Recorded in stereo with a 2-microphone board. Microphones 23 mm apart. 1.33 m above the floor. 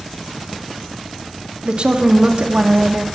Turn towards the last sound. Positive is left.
turn(degrees=-55)  # may be behind; listen again after turning